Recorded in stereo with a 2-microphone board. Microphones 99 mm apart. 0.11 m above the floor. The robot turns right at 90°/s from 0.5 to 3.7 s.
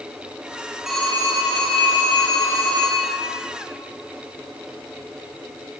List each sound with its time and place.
0.9 s a phone ringing: 5° right, 1.8 m; by 3.1 s 160° right, 1.8 m